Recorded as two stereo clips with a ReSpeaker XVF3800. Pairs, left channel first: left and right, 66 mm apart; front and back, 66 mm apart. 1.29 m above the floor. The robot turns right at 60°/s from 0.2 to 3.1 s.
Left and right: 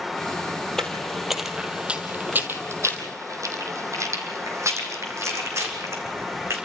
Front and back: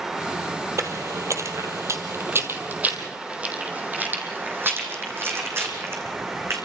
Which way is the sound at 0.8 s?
170° left.